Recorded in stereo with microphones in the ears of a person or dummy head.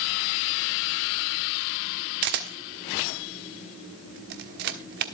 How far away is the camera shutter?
About 1.2 m.